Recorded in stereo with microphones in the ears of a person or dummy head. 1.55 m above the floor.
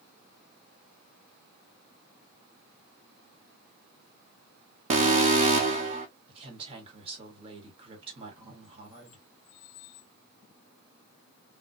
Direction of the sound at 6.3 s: 30° right (ahead or behind).